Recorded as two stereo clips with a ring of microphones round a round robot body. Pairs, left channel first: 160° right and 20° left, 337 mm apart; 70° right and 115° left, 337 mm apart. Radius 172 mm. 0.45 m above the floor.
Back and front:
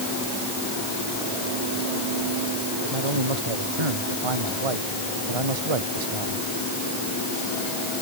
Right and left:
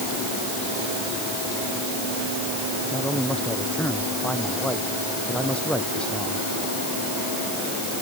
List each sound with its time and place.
2.9 s a man speaking: 20° left